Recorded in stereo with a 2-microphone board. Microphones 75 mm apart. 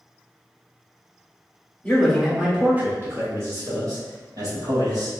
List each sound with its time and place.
1.8 s a man speaking: 20° left (ahead or behind), 0.9 m; by 5.1 s 55° right (ahead or behind), 2.5 m